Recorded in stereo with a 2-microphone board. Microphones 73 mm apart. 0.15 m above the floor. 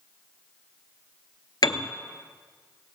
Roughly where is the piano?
Left.